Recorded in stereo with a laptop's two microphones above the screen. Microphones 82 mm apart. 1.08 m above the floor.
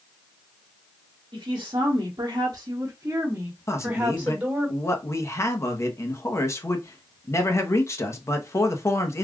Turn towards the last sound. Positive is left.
turn(degrees=35)  # may be behind; listen again after turning